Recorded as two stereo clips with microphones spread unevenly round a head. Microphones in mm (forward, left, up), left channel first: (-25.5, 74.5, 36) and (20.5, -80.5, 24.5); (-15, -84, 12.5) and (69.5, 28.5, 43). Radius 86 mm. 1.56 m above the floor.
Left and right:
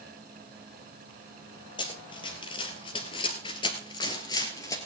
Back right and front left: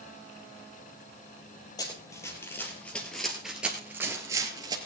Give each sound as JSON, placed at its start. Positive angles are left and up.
{"t": 1.8, "sound": "running footsteps", "azimuth_deg": 155, "distance_m": 2.0}